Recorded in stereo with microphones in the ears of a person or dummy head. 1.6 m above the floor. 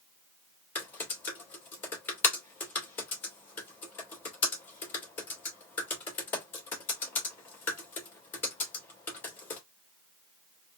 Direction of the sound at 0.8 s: 10° left (ahead or behind).